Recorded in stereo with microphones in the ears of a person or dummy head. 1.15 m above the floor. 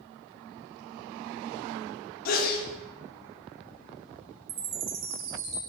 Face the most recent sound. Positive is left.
turn(degrees=-70)  # may be behind; listen again after turning